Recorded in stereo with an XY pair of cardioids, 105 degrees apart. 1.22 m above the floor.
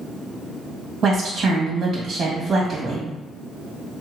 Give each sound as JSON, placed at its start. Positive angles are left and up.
{"t": 1.0, "sound": "a woman speaking", "azimuth_deg": -50, "distance_m": 1.5}